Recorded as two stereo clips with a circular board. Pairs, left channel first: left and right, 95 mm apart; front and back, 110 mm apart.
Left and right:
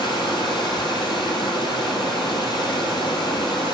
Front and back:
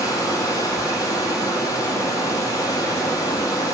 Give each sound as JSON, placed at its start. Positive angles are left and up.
{"t": 0.0, "sound": "running water", "azimuth_deg": 55, "distance_m": 2.0}